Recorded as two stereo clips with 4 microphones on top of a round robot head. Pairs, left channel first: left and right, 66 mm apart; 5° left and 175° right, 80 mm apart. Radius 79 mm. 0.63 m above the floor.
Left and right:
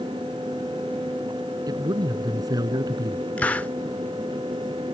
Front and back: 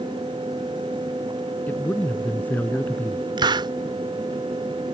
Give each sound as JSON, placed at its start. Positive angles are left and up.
{"t": 1.7, "sound": "a man speaking", "azimuth_deg": -70}
{"t": 3.4, "sound": "a hiss", "azimuth_deg": 160}